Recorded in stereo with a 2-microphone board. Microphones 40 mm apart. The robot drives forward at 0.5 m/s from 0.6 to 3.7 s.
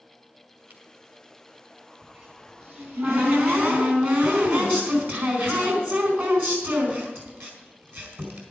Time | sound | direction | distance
0.7 | a camera shutter | 50° right (ahead or behind) | 2.5 m
2.0 | a cupboard door | 50° right (ahead or behind) | 4.5 m